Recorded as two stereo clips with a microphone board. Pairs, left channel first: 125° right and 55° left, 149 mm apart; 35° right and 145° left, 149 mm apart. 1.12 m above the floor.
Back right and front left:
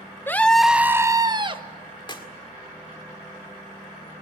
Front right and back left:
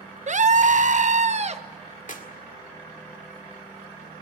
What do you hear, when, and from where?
0.3 s a scream: 165° left, 0.8 m; by 1.6 s 105° left, 1.1 m
2.1 s a clap: 65° right, 1.9 m